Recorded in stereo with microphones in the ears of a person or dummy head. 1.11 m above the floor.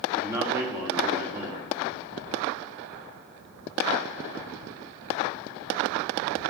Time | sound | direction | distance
0.2 | a man speaking | 10° right (ahead or behind) | 2.5 m